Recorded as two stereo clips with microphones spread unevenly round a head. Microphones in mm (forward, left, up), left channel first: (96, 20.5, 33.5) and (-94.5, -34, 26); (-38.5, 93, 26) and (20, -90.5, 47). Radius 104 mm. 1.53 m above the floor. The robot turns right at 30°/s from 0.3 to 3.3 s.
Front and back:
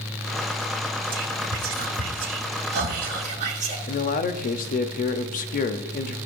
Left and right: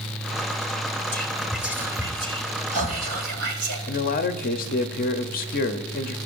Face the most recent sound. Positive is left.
turn(degrees=65)